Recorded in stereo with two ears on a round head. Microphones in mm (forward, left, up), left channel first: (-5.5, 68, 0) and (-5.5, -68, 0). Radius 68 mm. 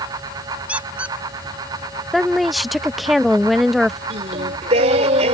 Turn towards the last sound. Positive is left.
turn(degrees=-45)  # may be behind; listen again after turning